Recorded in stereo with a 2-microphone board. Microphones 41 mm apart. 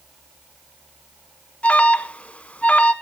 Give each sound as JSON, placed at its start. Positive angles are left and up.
{"t": 1.6, "sound": "an alarm", "side_deg": 35, "distance_m": 1.0}